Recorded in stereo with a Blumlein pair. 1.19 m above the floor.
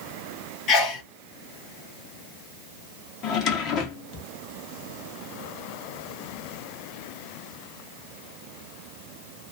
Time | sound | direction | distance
0.7 | a sneeze | 30° left | 1.1 m
3.2 | a drawer | 35° left | 0.7 m